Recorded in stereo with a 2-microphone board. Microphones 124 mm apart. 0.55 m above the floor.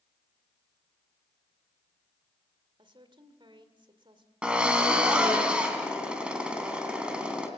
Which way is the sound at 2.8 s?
40° right (ahead or behind).